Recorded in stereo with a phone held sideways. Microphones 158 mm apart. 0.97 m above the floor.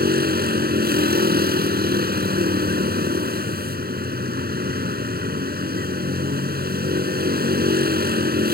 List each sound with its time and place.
0.0 s a vehicle: 80° right